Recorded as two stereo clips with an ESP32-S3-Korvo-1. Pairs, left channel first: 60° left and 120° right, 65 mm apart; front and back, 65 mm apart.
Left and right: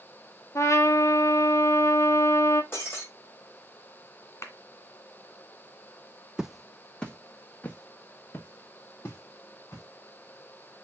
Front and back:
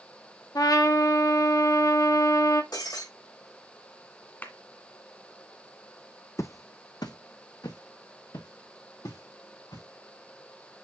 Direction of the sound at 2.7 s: 5° left.